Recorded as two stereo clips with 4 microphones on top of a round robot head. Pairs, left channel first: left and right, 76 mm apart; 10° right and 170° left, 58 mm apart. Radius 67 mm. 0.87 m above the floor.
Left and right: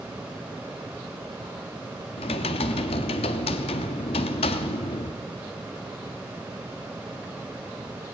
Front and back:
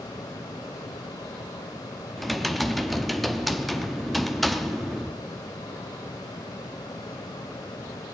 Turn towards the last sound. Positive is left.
turn(degrees=80)